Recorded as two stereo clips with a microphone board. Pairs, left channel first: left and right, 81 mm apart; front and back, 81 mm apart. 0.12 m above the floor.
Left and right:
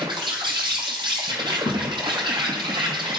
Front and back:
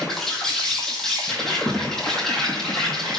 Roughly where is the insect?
Right.